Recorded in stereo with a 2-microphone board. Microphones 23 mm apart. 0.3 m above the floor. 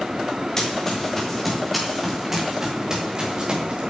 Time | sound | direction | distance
0.6 | running footsteps | 20° left (ahead or behind) | 4.5 m